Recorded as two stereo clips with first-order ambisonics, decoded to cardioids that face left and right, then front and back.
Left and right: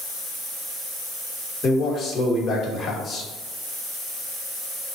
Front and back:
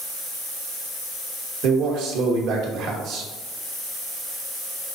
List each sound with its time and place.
1.6 s a man speaking: 150° left, 1.2 m